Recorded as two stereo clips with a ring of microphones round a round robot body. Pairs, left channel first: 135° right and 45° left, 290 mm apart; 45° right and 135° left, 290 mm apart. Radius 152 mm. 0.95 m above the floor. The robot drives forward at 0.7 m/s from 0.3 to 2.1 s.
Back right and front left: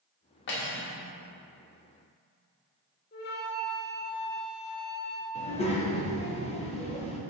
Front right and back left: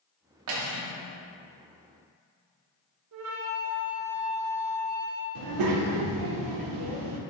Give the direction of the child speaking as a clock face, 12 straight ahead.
7 o'clock.